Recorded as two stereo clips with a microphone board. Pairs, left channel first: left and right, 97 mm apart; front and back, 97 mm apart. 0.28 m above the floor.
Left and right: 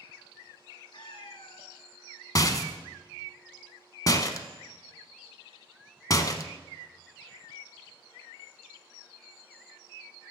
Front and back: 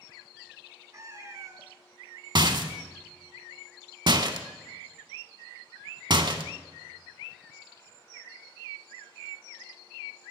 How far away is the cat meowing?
About 0.9 m.